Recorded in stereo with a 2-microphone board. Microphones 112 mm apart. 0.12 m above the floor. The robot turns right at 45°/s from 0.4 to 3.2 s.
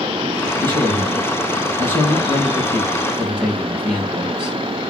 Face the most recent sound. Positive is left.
turn(degrees=-10)